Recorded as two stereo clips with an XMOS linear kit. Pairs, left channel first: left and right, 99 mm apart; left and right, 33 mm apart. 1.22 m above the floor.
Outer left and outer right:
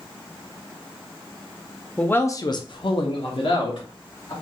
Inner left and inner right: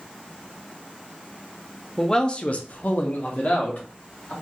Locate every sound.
2.0 s a man speaking: 10° left (ahead or behind), 0.5 m; by 4.3 s 55° left (ahead or behind), 1.4 m